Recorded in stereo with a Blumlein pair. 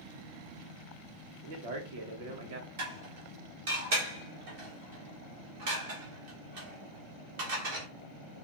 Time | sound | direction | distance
1.4 | a man speaking | 50° right | 1.2 m
2.8 | dishes clattering | 50° right | 1.7 m